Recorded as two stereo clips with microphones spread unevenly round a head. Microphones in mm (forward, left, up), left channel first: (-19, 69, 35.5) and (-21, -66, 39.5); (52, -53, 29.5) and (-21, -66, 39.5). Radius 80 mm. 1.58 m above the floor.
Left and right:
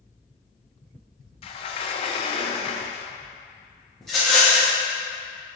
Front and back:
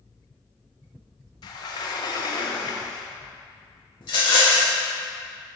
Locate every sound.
1.4 s a sliding door: 40° left, 0.6 m
4.0 s a rattle: straight ahead, 1.4 m